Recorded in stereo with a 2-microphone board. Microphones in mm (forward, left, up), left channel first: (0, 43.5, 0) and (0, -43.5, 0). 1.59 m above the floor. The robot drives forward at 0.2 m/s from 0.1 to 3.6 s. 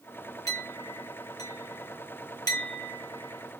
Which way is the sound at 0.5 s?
40° left (ahead or behind).